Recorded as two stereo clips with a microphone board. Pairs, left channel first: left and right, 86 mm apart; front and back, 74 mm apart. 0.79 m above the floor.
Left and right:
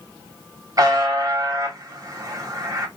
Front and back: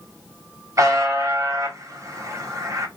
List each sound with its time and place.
0.8 s a buzzer: 135° right, 1.0 m